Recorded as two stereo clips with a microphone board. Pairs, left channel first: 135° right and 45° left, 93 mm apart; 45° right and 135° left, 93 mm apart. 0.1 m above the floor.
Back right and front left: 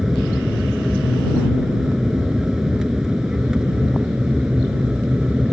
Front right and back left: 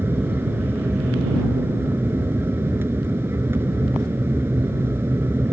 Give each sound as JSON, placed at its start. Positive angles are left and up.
{"t": 0.0, "sound": "an aircraft", "azimuth_deg": 125}